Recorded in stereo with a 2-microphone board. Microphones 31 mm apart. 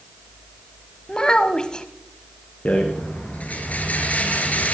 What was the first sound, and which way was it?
A child speaking, 30° left (ahead or behind).